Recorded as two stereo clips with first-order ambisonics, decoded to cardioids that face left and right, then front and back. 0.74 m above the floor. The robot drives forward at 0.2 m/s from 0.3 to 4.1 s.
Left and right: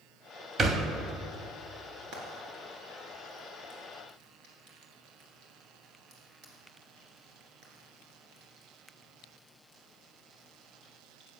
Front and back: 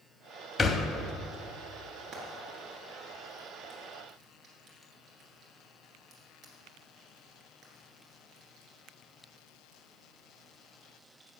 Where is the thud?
50° right, 0.6 m; by 0.9 s 60° right, 0.6 m.